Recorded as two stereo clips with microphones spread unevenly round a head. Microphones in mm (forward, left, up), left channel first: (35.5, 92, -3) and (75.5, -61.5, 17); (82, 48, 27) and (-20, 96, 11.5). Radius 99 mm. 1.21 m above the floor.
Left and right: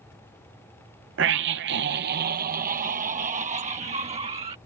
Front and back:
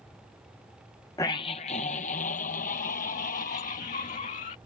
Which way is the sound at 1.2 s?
100° right.